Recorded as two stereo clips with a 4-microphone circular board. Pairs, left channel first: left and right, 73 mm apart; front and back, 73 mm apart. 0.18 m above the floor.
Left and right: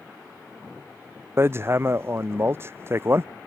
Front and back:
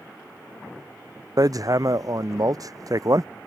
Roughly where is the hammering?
Behind right.